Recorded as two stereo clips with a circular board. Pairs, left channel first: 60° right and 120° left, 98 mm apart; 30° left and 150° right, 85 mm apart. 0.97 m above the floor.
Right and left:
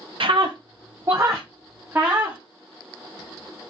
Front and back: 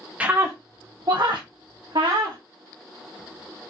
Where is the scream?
135° left, 0.5 m; by 2.4 s 170° right, 1.5 m.